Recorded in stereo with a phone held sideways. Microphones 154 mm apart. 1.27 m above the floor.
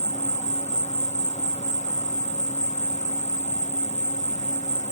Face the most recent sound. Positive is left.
turn(degrees=45)  # may be behind; listen again after turning